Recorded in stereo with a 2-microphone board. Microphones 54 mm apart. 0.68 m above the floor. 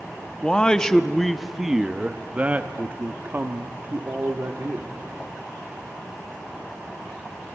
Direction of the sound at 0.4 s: 15° left (ahead or behind).